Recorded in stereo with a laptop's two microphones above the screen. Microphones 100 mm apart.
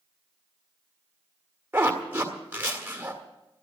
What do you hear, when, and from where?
1.7 s a zipper: 20° right (ahead or behind), 1.7 m